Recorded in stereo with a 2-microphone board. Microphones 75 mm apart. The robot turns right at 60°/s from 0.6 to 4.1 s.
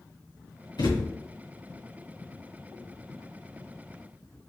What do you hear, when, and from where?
0.8 s a thud: 80° left, 2 m; by 1.1 s 65° left (ahead or behind), 2 m